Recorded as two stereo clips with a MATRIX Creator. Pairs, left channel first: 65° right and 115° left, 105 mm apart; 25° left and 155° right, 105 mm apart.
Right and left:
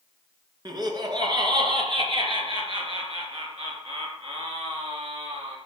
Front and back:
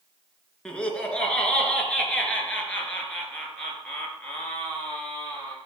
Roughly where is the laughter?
Left.